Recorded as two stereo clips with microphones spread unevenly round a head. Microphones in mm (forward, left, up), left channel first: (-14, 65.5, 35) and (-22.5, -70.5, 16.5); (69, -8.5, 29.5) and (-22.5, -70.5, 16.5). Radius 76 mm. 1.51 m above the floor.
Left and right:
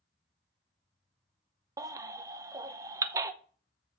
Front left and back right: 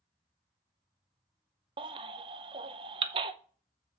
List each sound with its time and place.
1.8 s a baby crying: 155° right, 0.6 m